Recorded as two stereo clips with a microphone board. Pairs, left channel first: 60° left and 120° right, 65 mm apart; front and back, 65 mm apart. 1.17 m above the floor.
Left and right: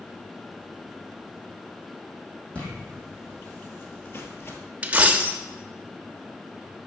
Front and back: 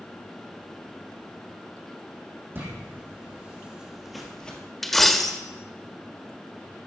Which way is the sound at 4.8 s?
80° right.